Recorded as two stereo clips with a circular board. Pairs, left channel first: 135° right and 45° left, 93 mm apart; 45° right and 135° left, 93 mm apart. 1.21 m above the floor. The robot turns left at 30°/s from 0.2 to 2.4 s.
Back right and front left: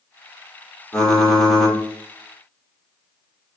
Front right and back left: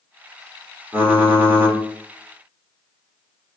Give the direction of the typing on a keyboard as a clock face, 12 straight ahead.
7 o'clock.